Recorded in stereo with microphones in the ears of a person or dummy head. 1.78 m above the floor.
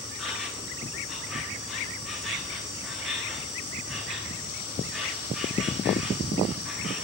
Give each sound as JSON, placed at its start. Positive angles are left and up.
{"t": 0.0, "sound": "an insect", "side_deg": 5, "distance_m": 1.3}